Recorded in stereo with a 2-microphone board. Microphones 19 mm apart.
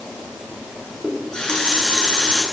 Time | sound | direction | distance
1.0 | a running tap | 40° left (ahead or behind) | 9.5 m